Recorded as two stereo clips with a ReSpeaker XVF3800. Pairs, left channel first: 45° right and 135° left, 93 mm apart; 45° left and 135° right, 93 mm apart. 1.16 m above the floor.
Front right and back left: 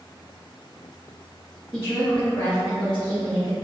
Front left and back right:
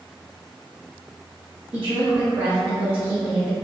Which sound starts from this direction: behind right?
A woman speaking, at 1.7 s.